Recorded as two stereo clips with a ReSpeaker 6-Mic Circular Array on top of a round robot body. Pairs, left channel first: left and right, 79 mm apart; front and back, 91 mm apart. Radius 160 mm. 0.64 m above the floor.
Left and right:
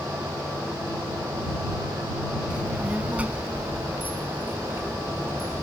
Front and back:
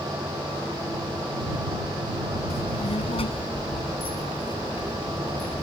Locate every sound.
2.5 s a child speaking: 10° right; by 5.7 s 30° right